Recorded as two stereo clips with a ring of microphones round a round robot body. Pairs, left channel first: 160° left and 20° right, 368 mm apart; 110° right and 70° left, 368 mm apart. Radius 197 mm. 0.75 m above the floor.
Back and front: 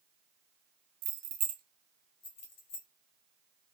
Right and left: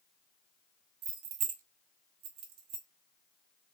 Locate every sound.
1.0 s keys jangling: 5° left, 0.7 m; by 2.9 s 95° left, 1.2 m